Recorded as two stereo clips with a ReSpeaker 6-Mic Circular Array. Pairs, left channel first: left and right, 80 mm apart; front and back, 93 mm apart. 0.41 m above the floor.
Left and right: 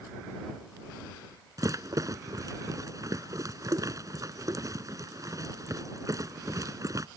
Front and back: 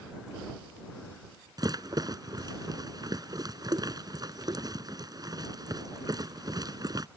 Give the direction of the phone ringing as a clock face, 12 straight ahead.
I don't hear a phone ringing.